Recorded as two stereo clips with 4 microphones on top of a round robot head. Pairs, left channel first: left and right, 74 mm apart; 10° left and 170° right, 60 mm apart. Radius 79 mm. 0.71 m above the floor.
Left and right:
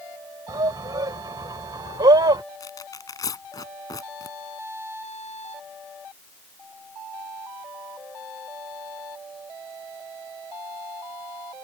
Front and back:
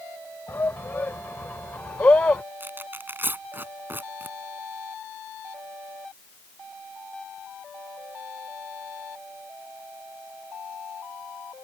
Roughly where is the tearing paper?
Behind left.